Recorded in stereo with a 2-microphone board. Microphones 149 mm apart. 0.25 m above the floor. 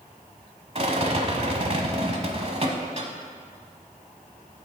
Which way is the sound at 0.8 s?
45° right (ahead or behind).